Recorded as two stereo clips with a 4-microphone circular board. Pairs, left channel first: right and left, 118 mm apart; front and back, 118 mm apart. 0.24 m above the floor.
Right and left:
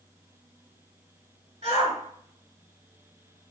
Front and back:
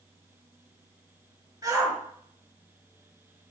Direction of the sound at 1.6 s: 120° left.